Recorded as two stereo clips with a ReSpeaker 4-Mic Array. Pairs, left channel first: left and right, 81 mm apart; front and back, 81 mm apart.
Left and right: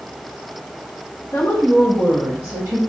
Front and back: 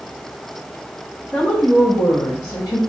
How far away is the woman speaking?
About 0.7 m.